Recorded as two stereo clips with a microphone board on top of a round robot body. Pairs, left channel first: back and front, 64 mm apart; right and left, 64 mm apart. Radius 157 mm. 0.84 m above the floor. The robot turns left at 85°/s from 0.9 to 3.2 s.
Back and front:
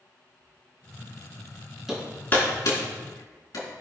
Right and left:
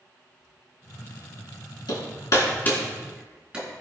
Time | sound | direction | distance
1.9 | hammering | 85° right | 4 m